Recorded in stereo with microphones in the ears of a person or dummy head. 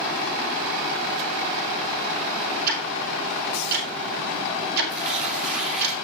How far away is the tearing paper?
About 2 m.